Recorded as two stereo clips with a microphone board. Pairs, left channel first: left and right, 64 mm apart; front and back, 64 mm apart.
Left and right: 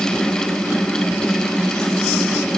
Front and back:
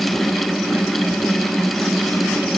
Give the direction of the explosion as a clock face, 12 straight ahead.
No explosion in this recording.